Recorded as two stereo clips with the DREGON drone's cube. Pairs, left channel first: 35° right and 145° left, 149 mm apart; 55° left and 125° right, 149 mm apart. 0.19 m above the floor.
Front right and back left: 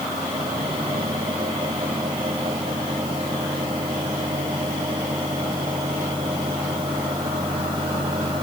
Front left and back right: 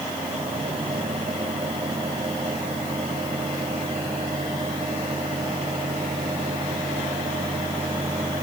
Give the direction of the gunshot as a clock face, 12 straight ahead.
No gunshot in this recording.